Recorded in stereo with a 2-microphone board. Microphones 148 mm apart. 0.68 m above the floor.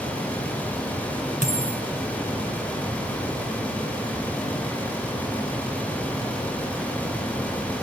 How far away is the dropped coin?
About 4.5 m.